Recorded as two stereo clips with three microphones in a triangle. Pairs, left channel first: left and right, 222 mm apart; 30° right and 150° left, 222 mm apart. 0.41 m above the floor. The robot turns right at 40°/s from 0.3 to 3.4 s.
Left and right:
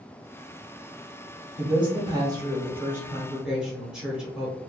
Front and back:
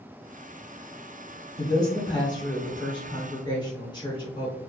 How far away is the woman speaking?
About 1.0 m.